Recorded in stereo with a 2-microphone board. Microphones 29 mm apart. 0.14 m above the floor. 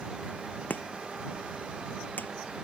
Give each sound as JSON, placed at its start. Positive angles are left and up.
{"t": 0.7, "sound": "chopping", "side_deg": 80}